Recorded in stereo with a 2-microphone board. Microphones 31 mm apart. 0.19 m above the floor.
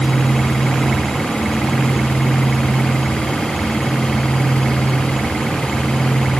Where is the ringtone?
No ringtone in this recording.